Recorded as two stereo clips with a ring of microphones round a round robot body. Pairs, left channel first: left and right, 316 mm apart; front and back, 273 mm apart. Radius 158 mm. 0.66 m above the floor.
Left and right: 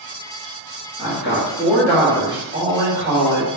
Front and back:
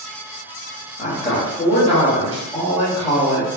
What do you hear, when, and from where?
1.0 s a woman speaking: 55° left, 1.3 m; by 3.5 s 85° right, 1.3 m